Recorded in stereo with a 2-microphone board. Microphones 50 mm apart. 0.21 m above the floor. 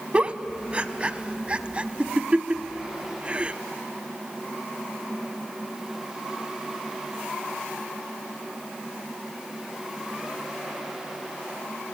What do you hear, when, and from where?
0.1 s a giggle: 25° right (ahead or behind), 0.6 m